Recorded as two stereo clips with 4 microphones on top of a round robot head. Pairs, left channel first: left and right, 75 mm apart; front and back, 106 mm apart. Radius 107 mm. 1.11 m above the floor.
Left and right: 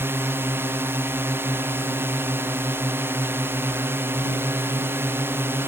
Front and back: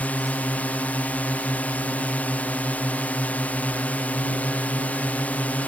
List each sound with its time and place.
0.0 s a drone: 70° right